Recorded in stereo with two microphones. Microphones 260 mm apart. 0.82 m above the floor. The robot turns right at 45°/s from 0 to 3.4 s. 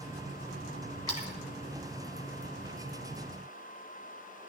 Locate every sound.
1.1 s a splash: 80° left, 2.5 m; by 1.3 s 85° left, 2.5 m